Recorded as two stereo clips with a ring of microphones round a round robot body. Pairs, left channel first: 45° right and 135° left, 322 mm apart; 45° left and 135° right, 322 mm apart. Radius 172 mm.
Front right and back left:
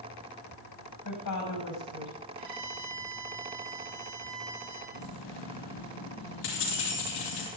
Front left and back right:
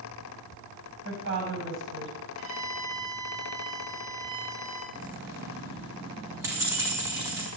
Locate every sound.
1.1 s a woman speaking: 80° right, 6 m
2.4 s a violin: 175° left, 9.5 m
4.9 s keys jangling: 55° right, 6.5 m